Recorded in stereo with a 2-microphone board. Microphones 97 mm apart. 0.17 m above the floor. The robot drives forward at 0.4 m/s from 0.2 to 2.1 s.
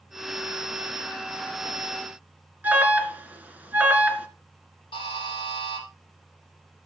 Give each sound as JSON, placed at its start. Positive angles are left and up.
{"t": 2.6, "sound": "an alarm", "side_deg": -15, "distance_m": 1.9}
{"t": 4.9, "sound": "a buzzer", "side_deg": 50, "distance_m": 6.5}